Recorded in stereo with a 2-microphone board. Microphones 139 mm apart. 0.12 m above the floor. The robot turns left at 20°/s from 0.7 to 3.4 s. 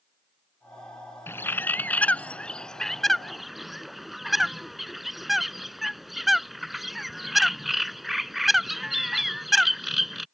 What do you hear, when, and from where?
1.3 s a bird: 15° left (ahead or behind); by 10.2 s centre (ahead or behind)